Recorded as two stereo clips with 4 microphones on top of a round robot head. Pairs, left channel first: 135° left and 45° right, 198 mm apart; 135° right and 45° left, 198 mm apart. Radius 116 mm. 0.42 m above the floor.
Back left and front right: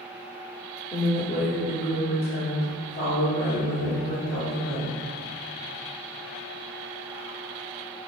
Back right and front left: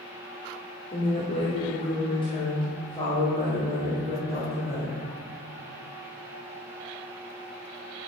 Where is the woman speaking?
175° right, 1.4 m; by 5.0 s 155° left, 3.5 m.